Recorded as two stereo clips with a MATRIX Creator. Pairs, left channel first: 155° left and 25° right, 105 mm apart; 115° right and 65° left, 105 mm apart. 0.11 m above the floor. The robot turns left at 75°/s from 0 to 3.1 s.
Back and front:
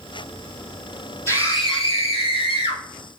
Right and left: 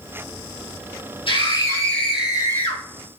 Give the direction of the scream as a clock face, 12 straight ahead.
5 o'clock.